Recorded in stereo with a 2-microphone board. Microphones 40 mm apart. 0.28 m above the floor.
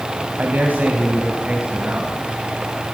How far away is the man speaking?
About 1.6 m.